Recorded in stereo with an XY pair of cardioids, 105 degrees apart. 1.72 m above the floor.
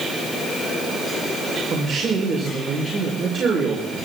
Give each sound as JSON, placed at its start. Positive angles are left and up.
{"t": 1.7, "sound": "a man speaking", "azimuth_deg": -45, "distance_m": 5.5}